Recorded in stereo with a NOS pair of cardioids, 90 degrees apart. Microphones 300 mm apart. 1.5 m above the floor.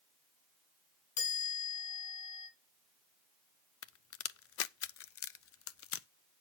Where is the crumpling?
I don't hear crumpling.